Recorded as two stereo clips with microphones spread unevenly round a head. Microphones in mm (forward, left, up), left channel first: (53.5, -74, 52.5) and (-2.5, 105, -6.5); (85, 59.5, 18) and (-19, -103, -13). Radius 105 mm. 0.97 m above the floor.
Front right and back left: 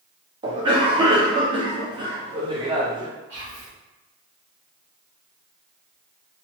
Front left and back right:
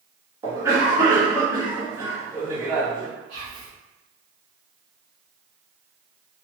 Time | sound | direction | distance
0.4 | a cough | 165° left | 1.1 m
3.3 | whispering | 175° left | 1.6 m